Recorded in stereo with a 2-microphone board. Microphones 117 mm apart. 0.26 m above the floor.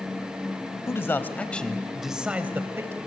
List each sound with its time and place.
0.9 s a man speaking: 25° left (ahead or behind), 1.2 m; by 3.0 s 25° right (ahead or behind), 1.1 m